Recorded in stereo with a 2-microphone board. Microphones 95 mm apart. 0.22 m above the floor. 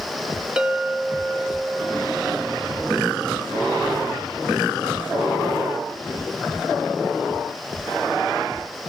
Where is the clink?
10° right (ahead or behind), 1.7 m.